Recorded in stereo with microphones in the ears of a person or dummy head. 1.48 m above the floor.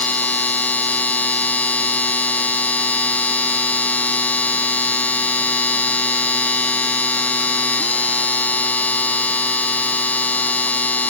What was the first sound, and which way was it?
A machine running, centre (ahead or behind).